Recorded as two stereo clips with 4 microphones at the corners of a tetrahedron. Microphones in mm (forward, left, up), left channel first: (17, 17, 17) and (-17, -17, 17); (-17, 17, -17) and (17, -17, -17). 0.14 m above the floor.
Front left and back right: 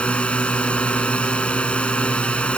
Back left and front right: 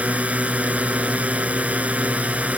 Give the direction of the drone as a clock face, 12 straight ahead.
12 o'clock.